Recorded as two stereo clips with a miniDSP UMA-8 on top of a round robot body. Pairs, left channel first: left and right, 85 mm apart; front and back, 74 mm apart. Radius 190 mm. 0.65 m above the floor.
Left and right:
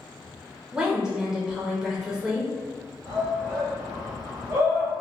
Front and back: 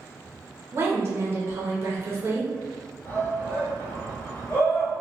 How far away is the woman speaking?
About 1.0 m.